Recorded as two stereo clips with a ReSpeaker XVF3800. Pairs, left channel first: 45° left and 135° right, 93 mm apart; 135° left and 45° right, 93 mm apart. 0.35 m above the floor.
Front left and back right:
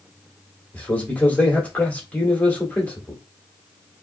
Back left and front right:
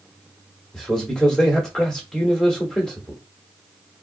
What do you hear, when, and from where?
0.7 s a man speaking: 70° left, 1.4 m